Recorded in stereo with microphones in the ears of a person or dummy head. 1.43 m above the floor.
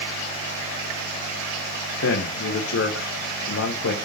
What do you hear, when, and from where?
2.0 s a man speaking: 75° left (ahead or behind), 0.9 m